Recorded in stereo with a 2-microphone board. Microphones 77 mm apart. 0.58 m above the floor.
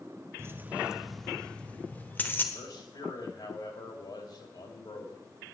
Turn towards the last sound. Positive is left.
turn(degrees=70)  # may be behind; listen again after turning